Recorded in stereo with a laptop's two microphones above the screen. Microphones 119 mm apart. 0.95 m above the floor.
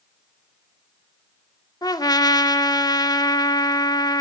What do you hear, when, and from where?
1.8 s a trumpet: 35° left (ahead or behind), 1.7 m